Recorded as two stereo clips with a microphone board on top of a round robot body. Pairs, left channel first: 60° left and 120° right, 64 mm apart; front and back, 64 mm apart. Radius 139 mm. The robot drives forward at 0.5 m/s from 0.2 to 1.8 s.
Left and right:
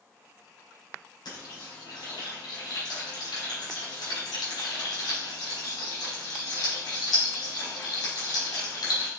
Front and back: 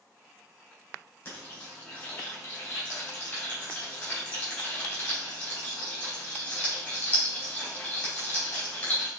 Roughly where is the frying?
Ahead left.